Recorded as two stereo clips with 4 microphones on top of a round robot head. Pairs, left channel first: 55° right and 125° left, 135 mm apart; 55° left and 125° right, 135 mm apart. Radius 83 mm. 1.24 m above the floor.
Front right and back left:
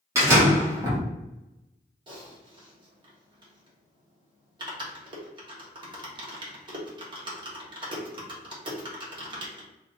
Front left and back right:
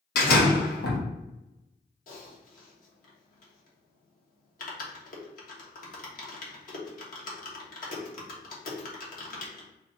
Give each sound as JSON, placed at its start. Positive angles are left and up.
{"t": 0.1, "sound": "a door slam", "azimuth_deg": 55, "distance_m": 1.4}
{"t": 2.1, "sound": "typing on a keyboard", "azimuth_deg": 70, "distance_m": 1.4}